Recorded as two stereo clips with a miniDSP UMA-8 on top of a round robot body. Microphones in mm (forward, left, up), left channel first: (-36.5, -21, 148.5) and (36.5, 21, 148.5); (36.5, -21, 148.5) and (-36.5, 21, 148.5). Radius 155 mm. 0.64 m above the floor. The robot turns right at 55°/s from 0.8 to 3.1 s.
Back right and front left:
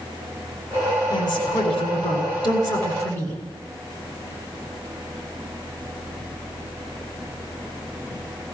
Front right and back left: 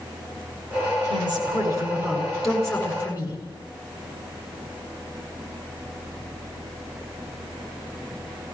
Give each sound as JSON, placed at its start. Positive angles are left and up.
{"t": 1.1, "sound": "a woman speaking", "azimuth_deg": 165, "distance_m": 7.5}